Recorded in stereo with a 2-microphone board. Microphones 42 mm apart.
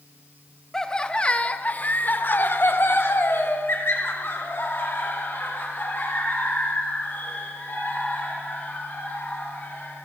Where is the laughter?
15° left (ahead or behind), 1.1 m; by 10.1 s 50° left (ahead or behind), 4.5 m.